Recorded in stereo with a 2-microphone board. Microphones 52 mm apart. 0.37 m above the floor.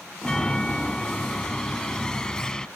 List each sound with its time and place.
0.2 s a chime: 15° left (ahead or behind)